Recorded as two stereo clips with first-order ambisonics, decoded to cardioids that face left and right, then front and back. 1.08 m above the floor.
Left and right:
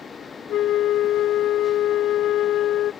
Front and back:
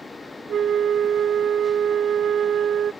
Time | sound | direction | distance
0.5 | a flute | 125° left | ?